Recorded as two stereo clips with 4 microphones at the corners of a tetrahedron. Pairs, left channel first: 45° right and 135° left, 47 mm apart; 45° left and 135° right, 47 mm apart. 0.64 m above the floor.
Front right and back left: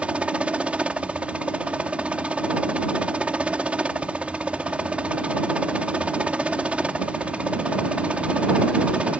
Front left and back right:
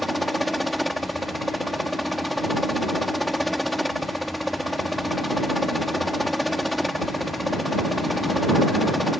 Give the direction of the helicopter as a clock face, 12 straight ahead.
8 o'clock.